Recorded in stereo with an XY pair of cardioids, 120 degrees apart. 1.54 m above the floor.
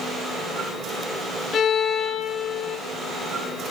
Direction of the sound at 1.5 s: 60° left.